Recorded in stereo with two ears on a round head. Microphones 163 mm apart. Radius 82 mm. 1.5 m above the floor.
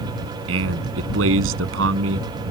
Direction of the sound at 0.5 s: 80° right.